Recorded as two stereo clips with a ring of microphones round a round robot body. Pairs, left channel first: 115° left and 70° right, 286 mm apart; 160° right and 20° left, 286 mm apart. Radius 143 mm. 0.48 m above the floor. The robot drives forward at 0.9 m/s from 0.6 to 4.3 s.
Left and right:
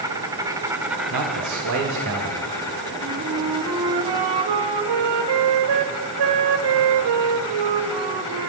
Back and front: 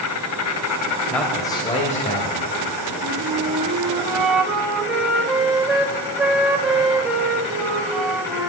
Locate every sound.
0.0 s an insect: 145° right, 1.2 m; by 8.5 s 170° right, 4 m
1.1 s a man speaking: 70° right, 2 m; by 2.5 s 105° right, 2 m
3.0 s a flute: 35° right, 2 m; by 8.5 s 65° right, 1.3 m